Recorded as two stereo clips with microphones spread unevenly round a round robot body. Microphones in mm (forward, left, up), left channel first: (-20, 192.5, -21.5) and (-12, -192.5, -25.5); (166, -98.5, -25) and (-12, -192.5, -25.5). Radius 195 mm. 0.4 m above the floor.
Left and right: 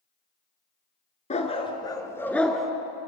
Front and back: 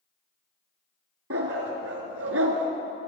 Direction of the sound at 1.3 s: 165° left.